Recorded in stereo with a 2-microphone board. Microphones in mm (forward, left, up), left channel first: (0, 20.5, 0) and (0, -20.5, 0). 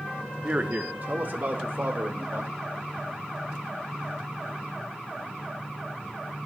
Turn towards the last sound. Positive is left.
turn(degrees=-60)  # may be behind; listen again after turning